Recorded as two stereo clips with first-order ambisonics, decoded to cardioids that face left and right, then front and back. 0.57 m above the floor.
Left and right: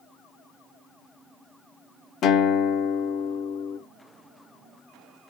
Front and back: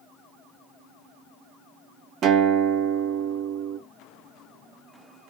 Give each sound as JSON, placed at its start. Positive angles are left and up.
{"t": 2.2, "sound": "a guitar", "azimuth_deg": 140, "distance_m": 0.5}